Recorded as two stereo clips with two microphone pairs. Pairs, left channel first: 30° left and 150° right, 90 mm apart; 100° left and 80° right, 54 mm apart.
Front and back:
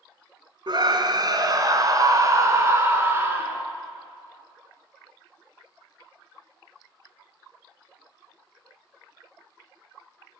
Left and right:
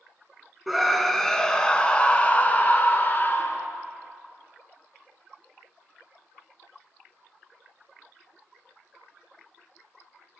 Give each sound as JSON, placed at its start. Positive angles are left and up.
{"t": 0.7, "sound": "a scream", "azimuth_deg": -165, "distance_m": 1.8}